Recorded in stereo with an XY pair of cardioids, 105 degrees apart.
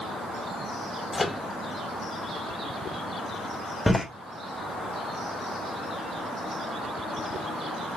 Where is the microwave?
20° left, 0.7 m.